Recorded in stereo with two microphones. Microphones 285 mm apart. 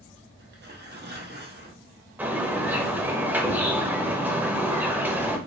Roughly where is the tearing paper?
Right.